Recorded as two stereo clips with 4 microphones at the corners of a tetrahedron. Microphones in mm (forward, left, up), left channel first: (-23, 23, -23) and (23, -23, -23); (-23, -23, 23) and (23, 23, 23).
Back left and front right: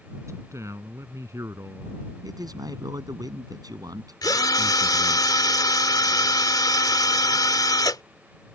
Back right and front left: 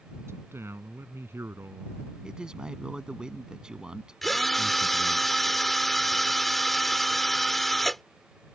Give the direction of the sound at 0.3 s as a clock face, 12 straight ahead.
12 o'clock.